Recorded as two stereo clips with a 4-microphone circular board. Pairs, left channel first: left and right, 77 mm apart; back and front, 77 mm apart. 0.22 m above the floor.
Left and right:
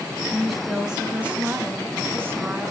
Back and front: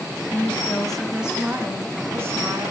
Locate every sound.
0.3 s a woman speaking: 170° left, 1.7 m; by 2.7 s 40° right, 3 m